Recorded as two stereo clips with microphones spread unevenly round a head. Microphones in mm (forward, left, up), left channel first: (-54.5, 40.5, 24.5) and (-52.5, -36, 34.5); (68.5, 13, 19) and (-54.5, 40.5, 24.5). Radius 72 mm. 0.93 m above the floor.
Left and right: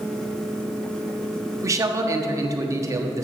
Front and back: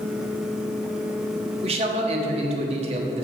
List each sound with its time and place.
1.6 s a man speaking: 140° right, 1.4 m